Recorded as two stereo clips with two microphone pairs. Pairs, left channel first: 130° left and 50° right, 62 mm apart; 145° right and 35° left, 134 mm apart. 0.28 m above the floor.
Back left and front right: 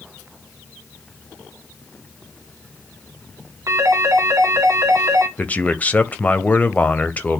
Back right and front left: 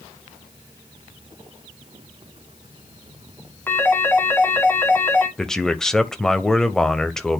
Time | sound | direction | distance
3.7 | a phone ringing | 75° right | 2.0 m
5.4 | a man speaking | 130° left | 0.9 m